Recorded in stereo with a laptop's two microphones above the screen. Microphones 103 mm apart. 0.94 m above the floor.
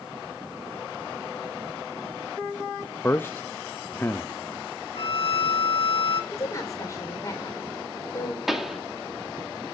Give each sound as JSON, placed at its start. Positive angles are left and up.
{"t": 3.0, "sound": "a man speaking", "side_deg": 20, "distance_m": 0.6}
{"t": 5.0, "sound": "a violin", "side_deg": 65, "distance_m": 1.9}
{"t": 6.3, "sound": "a woman speaking", "side_deg": 30, "distance_m": 3.0}
{"t": 8.5, "sound": "a pop", "side_deg": -5, "distance_m": 2.0}